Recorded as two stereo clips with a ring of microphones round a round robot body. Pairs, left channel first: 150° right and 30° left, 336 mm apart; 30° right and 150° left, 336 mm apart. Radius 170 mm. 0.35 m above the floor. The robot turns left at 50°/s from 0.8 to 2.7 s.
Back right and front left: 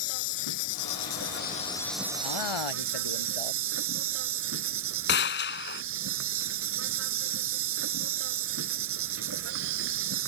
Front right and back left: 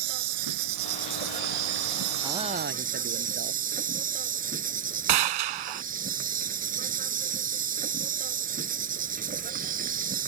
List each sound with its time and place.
0.0 s an insect: straight behind; by 10.3 s 85° left
2.2 s a man speaking: 125° right; by 3.6 s 150° right
5.1 s a gunshot: 150° left